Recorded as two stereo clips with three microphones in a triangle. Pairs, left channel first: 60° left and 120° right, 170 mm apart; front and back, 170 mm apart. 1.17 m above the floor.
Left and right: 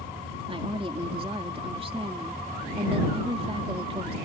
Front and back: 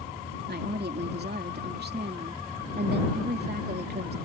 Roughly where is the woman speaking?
Behind.